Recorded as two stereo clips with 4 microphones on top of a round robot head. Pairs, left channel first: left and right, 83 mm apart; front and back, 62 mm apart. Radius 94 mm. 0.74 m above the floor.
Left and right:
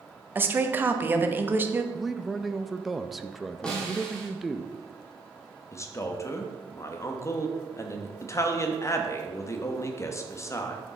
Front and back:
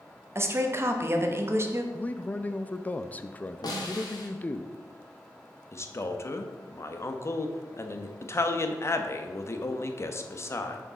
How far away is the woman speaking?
About 1.0 m.